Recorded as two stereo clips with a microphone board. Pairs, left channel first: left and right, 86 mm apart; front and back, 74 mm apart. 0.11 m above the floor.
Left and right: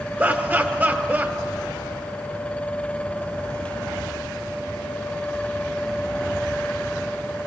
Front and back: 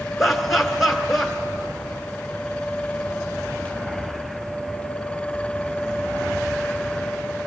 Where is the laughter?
90° right, 1.1 m.